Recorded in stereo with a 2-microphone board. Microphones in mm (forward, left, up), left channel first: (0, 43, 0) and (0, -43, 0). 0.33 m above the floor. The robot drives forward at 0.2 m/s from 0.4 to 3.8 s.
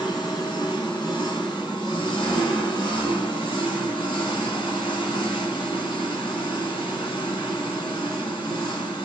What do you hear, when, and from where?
0.0 s an engine running: 60° left (ahead or behind), 1.3 m; by 9.1 s 80° left, 1.2 m